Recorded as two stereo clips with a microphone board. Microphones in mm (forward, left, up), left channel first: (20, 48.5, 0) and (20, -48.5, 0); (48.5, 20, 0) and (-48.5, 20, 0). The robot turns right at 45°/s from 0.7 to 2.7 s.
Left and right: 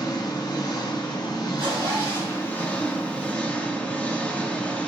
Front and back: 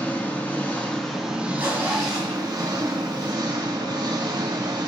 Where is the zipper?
110° right, 2 m; by 3.3 s 60° right, 2 m.